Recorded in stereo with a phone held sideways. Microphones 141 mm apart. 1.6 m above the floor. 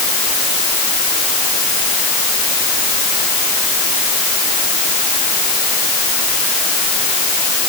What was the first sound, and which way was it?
Only background noise.